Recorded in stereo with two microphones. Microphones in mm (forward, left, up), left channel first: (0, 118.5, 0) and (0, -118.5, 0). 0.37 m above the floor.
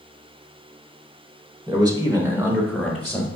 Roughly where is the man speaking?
Centre.